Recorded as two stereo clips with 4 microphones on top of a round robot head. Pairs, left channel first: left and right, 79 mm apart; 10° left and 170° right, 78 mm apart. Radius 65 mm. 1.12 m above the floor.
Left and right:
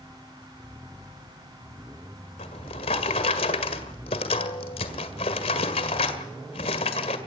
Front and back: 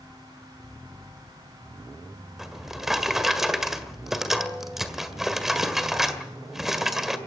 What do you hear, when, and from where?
2.4 s a drawer: 105° left, 1.8 m